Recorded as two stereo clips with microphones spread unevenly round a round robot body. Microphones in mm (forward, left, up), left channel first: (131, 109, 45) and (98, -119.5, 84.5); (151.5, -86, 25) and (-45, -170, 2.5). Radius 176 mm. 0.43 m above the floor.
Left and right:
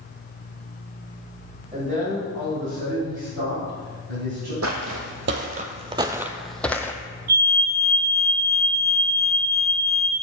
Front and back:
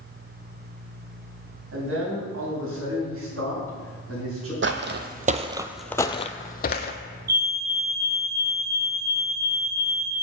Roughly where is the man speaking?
Behind.